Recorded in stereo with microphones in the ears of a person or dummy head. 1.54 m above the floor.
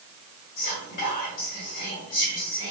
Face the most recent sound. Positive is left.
turn(degrees=35)  # may be behind; listen again after turning